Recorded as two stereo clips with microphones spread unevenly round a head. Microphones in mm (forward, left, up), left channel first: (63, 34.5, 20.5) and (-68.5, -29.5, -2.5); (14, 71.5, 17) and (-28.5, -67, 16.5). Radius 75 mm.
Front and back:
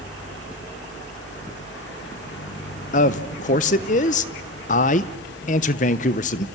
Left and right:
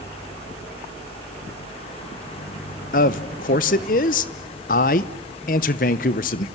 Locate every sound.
0.0 s a fan: 20° left, 2 m
2.9 s a man speaking: 45° left, 0.9 m